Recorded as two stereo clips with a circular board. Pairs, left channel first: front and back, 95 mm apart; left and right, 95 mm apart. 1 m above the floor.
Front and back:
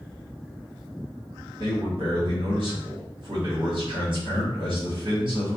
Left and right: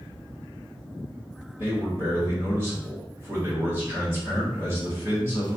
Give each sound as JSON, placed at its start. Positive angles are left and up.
{"t": 1.6, "sound": "a man speaking", "azimuth_deg": -150, "distance_m": 1.8}